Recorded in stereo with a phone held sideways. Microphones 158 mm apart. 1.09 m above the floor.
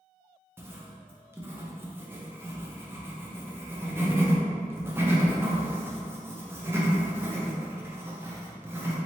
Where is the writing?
15° right (ahead or behind), 0.6 m.